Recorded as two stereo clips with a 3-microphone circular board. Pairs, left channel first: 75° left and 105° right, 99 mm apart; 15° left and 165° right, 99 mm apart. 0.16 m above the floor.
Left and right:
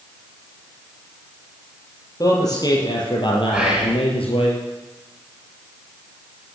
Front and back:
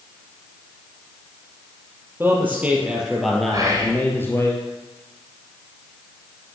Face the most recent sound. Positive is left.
turn(degrees=180)